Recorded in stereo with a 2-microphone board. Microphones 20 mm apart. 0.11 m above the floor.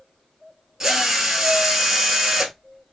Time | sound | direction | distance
0.8 | a drill | 25° right (ahead or behind) | 0.9 m